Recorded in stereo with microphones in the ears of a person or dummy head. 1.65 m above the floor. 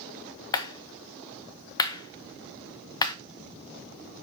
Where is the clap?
20° left (ahead or behind), 0.8 m.